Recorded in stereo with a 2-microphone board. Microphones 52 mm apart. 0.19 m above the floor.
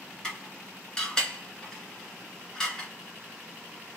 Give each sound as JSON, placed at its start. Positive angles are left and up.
{"t": 0.2, "sound": "dishes clattering", "side_deg": 15, "distance_m": 1.8}